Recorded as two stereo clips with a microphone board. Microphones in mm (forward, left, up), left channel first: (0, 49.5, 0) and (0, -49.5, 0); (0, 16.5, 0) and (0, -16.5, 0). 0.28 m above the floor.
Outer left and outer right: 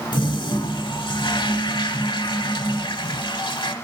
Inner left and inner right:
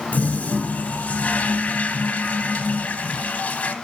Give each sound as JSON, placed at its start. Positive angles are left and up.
{"t": 0.1, "sound": "a toilet flushing", "side_deg": 55, "distance_m": 0.6}